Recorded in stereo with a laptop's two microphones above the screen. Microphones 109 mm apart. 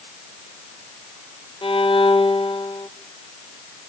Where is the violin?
50° left (ahead or behind), 1.1 m.